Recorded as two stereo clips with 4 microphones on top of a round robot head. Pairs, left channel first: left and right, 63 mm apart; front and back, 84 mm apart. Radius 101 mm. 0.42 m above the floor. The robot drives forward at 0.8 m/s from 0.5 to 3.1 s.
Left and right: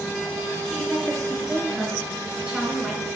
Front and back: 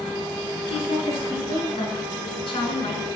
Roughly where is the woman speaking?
Ahead.